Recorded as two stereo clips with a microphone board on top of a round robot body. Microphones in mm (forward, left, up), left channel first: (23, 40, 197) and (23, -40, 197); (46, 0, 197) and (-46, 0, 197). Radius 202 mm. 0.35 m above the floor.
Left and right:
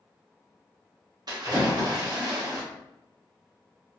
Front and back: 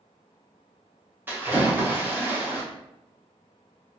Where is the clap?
No clap in this recording.